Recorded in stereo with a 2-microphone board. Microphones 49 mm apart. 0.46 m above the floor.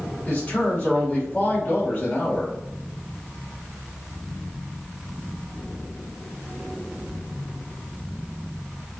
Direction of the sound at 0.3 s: 30° left (ahead or behind).